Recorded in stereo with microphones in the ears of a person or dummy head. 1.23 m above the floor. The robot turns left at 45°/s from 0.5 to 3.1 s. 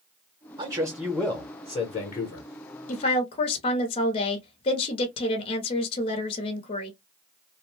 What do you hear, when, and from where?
0.6 s a man speaking: 155° right, 0.8 m; by 2.5 s 120° left, 0.8 m
2.9 s a woman speaking: 40° left (ahead or behind), 0.8 m; by 6.9 s 35° left (ahead or behind), 0.8 m